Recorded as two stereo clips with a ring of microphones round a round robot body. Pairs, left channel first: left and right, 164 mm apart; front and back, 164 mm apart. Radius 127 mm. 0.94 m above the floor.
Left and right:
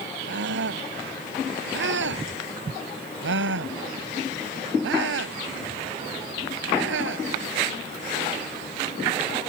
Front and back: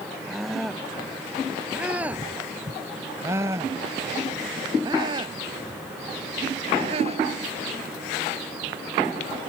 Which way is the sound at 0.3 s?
90° right.